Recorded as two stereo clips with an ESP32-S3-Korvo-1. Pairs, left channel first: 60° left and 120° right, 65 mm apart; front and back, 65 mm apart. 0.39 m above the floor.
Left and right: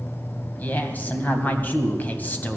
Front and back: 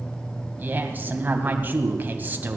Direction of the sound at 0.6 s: 120° left.